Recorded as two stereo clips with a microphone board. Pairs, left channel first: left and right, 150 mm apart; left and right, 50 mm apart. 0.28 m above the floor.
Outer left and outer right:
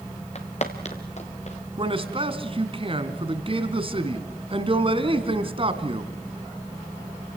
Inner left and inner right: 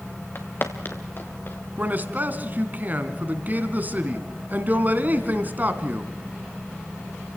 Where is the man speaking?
35° right (ahead or behind), 2 m.